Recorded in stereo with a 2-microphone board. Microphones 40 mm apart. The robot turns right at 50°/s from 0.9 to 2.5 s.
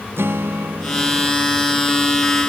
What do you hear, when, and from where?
0.2 s a guitar: 80° right; by 1.3 s 60° right (ahead or behind)